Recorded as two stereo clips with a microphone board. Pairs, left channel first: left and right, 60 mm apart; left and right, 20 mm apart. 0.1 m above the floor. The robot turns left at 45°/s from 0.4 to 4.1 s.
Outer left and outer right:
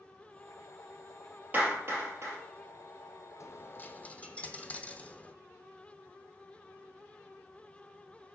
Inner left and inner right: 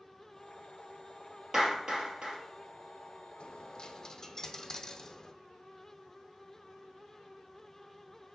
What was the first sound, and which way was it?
A clap, 30° right (ahead or behind).